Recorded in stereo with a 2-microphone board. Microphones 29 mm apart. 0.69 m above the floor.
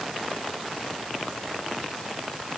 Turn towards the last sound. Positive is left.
No sound to turn to.